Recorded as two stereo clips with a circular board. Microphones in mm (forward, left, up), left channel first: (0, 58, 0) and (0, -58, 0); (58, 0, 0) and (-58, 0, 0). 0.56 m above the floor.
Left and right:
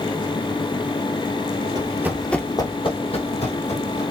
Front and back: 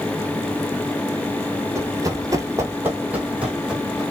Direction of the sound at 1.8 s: 125° right.